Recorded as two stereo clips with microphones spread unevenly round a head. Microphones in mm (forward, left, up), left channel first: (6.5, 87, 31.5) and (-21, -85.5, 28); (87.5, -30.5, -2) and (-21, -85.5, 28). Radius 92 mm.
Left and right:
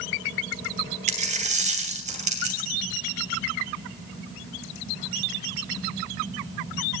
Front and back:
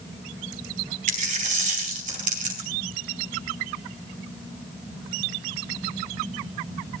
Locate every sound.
1.1 s a dropped coin: 150° right, 2.5 m